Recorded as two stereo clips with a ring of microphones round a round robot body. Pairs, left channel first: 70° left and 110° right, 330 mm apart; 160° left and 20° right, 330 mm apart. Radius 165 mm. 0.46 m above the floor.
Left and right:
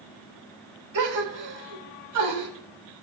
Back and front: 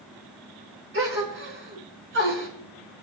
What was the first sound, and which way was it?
A gasp, 75° right.